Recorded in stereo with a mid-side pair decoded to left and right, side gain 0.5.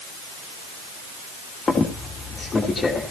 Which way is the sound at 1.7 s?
30° left.